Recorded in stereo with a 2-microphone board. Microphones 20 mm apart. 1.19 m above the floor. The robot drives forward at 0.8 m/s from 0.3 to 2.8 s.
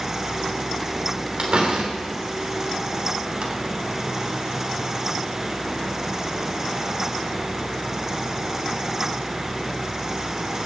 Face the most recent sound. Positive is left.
turn(degrees=-80)